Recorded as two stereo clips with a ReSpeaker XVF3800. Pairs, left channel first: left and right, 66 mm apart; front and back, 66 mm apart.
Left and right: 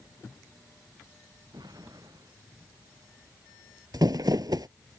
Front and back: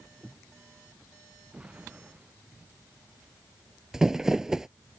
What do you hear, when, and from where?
1.5 s an explosion: 105° right
3.9 s crumpling: 95° right